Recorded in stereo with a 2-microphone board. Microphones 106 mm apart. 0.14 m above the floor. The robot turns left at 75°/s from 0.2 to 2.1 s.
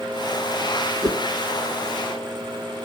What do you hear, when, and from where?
1.0 s a whoosh: 40° right (ahead or behind), 1.0 m; by 1.2 s 45° right (ahead or behind), 1.0 m